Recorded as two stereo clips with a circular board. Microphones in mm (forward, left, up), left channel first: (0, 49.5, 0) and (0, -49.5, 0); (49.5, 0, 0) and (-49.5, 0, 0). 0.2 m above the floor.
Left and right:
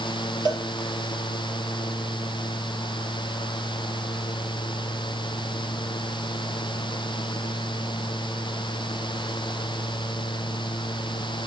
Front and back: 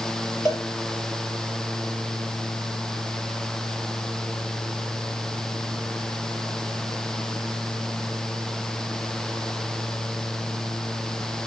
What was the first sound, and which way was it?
A cowbell, 135° right.